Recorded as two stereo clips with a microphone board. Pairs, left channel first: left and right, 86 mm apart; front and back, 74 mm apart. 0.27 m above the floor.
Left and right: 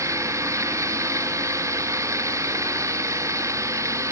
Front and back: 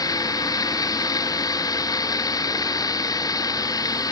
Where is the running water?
35° right.